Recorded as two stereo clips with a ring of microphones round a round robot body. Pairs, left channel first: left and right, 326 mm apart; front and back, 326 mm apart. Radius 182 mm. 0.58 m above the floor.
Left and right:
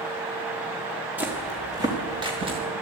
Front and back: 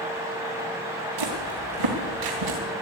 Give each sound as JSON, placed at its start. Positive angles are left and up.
{"t": 1.2, "sound": "footsteps", "azimuth_deg": -175, "distance_m": 3.5}